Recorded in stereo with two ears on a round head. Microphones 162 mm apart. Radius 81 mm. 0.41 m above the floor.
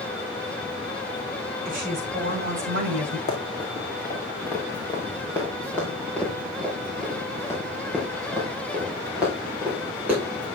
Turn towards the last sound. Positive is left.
turn(degrees=-10)  # may be behind; listen again after turning